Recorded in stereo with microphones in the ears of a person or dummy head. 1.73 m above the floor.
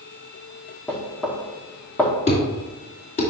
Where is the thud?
40° left (ahead or behind), 2.5 m.